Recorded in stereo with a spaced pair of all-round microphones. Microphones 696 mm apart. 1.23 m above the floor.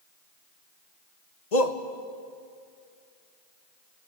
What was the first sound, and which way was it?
A shout, 65° left (ahead or behind).